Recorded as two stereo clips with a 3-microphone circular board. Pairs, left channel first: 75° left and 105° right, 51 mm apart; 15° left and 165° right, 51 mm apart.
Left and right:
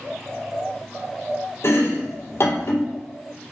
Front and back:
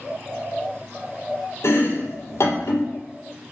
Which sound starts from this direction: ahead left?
Chopping, at 1.6 s.